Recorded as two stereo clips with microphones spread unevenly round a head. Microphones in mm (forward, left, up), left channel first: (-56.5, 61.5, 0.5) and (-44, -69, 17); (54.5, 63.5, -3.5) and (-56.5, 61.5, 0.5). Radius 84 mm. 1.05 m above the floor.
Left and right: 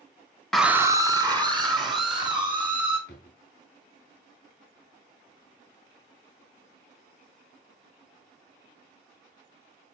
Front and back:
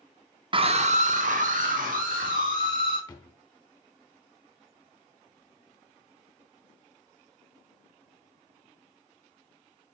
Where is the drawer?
55° left, 2.5 m.